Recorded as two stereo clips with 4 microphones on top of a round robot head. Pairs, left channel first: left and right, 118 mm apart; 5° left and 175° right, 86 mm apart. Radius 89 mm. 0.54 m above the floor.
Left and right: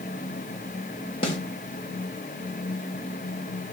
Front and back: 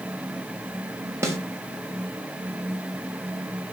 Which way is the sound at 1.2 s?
130° left.